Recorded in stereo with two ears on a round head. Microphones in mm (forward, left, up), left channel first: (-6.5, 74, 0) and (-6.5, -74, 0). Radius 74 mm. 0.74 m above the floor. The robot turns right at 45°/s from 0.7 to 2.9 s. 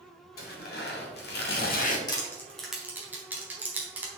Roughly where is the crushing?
Left.